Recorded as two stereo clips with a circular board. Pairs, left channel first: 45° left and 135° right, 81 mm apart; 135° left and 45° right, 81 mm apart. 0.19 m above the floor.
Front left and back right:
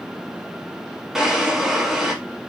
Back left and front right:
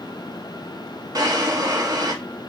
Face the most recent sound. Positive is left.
turn(degrees=-50)